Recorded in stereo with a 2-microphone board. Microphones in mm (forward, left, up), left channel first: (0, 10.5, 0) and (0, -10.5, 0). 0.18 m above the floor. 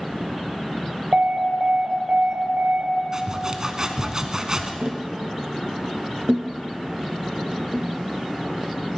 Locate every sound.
1.1 s an alarm: 65° right (ahead or behind), 2.5 m
3.1 s sawing: 30° right (ahead or behind), 1.0 m
4.8 s tapping: 40° right (ahead or behind), 0.9 m